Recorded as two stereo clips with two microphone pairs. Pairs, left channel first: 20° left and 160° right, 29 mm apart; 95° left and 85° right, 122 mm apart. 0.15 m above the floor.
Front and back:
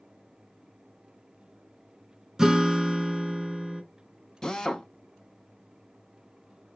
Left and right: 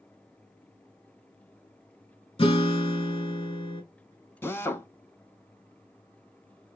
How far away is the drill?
About 0.5 m.